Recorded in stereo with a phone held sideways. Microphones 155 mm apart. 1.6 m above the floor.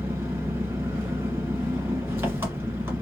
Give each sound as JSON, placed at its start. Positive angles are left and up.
{"t": 0.0, "sound": "an engine running", "side_deg": -15, "distance_m": 1.5}